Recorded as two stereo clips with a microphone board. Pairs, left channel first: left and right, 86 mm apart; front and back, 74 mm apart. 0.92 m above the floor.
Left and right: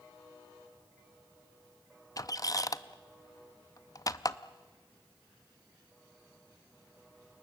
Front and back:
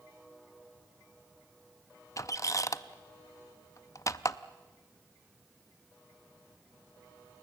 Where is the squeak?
45° left, 0.5 m.